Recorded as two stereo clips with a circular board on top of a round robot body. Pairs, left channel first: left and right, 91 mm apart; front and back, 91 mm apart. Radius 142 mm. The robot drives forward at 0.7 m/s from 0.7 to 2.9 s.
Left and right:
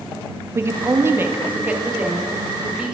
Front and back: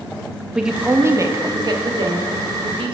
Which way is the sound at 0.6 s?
105° right.